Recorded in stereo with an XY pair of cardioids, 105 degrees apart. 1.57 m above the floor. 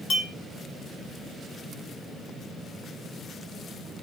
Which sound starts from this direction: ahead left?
A clink, at 0.1 s.